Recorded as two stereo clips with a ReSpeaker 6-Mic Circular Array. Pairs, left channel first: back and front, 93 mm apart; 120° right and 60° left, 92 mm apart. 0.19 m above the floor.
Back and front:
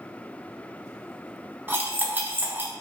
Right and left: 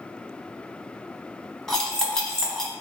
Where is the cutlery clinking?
45° right, 0.7 m.